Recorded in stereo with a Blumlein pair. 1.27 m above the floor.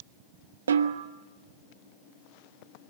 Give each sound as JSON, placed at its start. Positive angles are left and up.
{"t": 0.7, "sound": "a snare drum", "azimuth_deg": -70, "distance_m": 1.2}